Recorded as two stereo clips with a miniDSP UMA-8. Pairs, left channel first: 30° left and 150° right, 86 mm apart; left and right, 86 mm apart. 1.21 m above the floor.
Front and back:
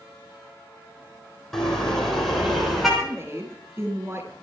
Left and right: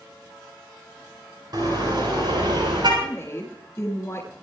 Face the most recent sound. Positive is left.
turn(degrees=150)